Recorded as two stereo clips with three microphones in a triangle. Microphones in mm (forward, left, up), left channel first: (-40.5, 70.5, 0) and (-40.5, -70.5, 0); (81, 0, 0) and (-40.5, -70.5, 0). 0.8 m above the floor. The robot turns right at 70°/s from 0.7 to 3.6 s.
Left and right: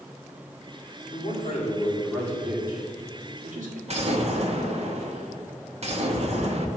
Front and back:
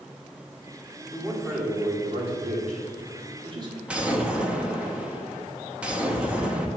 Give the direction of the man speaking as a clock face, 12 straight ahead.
9 o'clock.